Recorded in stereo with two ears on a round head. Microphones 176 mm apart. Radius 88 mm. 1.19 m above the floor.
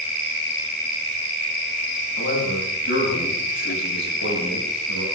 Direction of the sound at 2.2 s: 65° left (ahead or behind).